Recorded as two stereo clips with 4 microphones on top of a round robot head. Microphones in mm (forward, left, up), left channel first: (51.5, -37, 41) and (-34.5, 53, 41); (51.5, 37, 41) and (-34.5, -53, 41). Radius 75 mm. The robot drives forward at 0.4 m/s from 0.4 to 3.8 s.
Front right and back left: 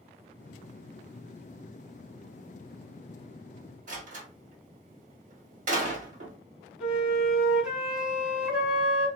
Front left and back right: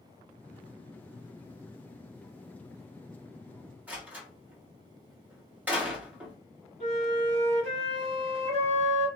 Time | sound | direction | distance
3.9 | a door slam | 150° left | 2 m
6.8 | a flute | 145° right | 1.7 m